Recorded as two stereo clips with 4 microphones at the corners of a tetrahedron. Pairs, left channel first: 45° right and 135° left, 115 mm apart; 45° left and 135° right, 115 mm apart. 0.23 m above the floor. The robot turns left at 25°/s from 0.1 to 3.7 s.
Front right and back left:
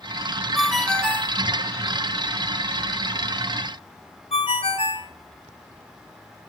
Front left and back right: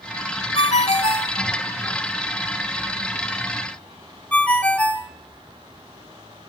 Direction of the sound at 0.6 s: 45° left.